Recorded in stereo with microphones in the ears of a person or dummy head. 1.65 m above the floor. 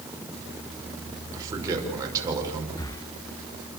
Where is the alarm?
No alarm in this recording.